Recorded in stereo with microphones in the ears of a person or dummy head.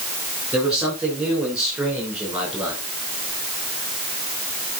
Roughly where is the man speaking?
Centre.